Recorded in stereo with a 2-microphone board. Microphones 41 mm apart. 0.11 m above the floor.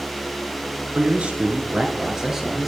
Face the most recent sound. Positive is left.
turn(degrees=-5)  # may be behind; listen again after turning